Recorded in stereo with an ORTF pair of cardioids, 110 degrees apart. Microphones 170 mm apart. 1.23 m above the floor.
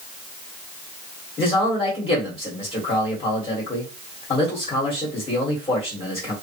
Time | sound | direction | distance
1.4 | a man speaking | 30° left | 1.7 m